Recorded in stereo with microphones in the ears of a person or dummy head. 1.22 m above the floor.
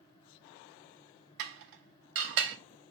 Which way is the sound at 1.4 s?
65° right (ahead or behind).